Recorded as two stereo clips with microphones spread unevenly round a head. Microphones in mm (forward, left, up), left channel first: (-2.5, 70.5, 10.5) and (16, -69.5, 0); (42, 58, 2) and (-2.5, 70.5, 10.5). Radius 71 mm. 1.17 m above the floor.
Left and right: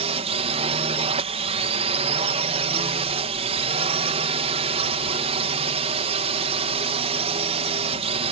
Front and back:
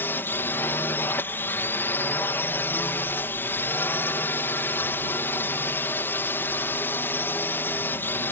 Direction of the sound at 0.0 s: 50° right.